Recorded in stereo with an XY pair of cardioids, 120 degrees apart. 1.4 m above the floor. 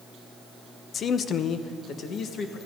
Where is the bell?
I don't hear a bell.